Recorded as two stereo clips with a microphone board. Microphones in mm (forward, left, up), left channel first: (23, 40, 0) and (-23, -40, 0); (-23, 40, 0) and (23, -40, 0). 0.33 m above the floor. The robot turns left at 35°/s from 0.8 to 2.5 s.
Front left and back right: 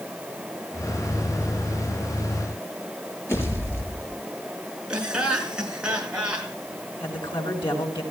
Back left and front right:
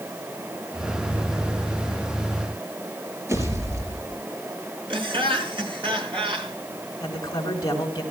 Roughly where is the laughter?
Ahead right.